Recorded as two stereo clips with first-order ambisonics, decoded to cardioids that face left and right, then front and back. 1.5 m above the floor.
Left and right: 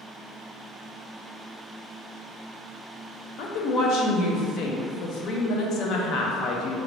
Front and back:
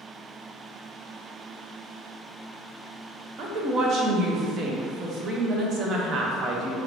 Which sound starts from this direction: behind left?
A woman speaking, at 3.4 s.